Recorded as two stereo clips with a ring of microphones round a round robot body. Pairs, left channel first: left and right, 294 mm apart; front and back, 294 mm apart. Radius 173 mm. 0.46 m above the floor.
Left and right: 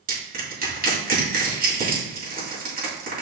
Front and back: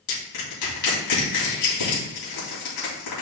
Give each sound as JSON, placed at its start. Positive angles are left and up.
{"t": 0.1, "sound": "crushing", "azimuth_deg": -30, "distance_m": 3.0}